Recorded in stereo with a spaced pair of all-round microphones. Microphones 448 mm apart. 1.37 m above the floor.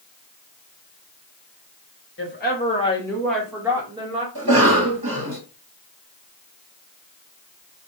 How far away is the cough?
About 1.2 m.